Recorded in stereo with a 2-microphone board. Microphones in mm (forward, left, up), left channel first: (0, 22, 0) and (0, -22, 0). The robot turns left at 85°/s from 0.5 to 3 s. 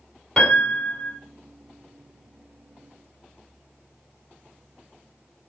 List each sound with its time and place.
0.4 s a piano: 160° left, 1.8 m; by 1.2 s 100° left, 1.8 m